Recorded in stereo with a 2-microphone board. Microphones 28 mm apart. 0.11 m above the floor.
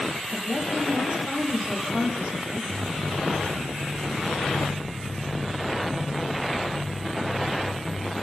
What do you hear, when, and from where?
0.3 s a woman speaking: 25° right (ahead or behind), 5 m
2.7 s footsteps: 10° right (ahead or behind), 5 m; by 8.1 s 70° right (ahead or behind), 5 m